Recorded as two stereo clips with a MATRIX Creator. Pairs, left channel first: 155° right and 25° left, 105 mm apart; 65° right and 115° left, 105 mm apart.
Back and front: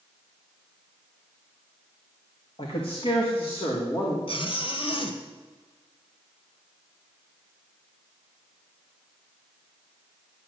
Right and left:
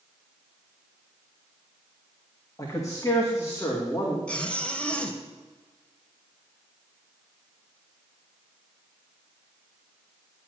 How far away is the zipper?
About 1.4 m.